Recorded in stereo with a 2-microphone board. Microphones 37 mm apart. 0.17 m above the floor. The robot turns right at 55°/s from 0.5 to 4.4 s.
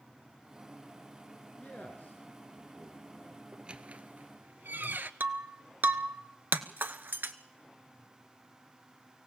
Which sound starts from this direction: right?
Breaking glass, at 5.2 s.